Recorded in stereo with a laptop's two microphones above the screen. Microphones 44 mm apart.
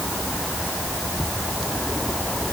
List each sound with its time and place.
Only background noise.